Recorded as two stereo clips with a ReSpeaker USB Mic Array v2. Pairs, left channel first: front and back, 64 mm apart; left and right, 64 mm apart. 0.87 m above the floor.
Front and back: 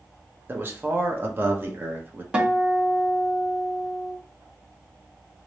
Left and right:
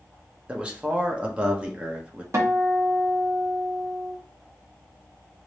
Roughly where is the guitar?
Right.